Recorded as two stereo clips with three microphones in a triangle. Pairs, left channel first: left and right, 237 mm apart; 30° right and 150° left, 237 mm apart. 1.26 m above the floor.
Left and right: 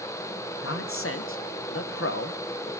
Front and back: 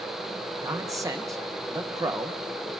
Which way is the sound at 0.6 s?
75° left.